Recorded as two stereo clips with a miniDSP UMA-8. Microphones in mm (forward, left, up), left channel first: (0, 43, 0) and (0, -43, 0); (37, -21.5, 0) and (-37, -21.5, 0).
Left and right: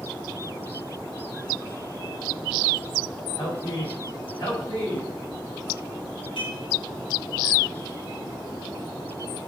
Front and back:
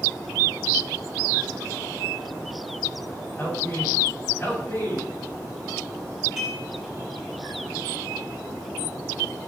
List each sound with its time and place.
3.4 s a man speaking: 55° left, 5.5 m
6.4 s dishes clattering: 100° left, 4.5 m